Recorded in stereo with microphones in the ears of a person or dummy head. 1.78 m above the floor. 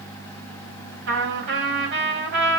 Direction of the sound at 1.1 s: 70° right (ahead or behind).